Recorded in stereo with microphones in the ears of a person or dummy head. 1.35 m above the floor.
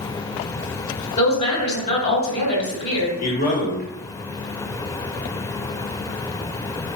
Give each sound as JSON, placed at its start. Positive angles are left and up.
{"t": 1.2, "sound": "a woman speaking", "side_deg": 30, "distance_m": 1.4}
{"t": 3.2, "sound": "a man speaking", "side_deg": 40, "distance_m": 1.0}